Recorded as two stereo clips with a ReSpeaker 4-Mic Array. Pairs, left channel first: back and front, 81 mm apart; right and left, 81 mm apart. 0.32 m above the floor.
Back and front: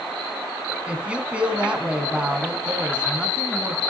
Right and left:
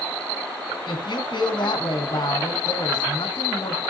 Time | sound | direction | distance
0.9 | a woman speaking | 75° right | 2.5 m